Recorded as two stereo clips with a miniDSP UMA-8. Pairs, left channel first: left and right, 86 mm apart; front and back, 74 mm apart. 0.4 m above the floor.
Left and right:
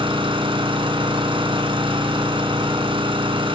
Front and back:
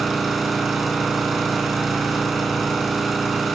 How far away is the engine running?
About 3 m.